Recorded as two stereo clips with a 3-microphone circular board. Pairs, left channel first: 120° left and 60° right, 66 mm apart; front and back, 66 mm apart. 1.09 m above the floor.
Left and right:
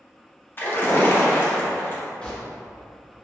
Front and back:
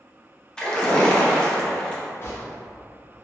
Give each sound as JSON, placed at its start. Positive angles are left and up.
{"t": 0.6, "sound": "a splash", "azimuth_deg": 75, "distance_m": 0.6}
{"t": 2.2, "sound": "a gunshot", "azimuth_deg": 45, "distance_m": 0.8}